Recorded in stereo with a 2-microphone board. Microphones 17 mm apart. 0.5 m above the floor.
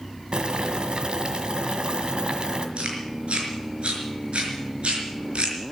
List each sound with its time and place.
0.3 s boiling: 50° right (ahead or behind), 1.6 m
2.8 s chewing: 75° right (ahead or behind), 4.5 m